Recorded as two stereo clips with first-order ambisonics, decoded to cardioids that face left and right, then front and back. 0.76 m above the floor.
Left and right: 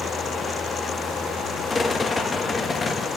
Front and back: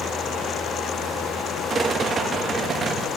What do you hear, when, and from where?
1.7 s a rattle: 150° left, 0.7 m